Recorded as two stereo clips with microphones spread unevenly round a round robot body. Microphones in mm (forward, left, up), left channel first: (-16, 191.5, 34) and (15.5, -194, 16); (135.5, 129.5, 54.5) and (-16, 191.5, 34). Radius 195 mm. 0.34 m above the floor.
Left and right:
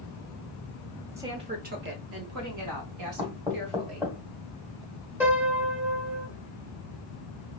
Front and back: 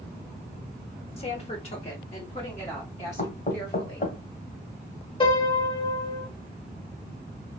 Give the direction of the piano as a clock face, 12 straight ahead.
1 o'clock.